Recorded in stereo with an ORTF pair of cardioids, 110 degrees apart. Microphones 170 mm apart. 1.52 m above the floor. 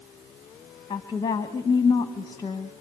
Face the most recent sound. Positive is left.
turn(degrees=25)